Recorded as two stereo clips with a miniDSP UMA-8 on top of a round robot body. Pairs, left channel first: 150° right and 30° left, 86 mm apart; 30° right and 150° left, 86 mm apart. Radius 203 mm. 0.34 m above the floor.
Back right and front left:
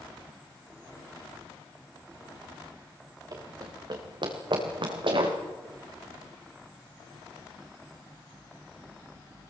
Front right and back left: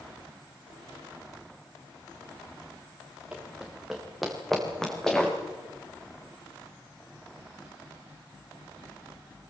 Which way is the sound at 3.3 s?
75° left.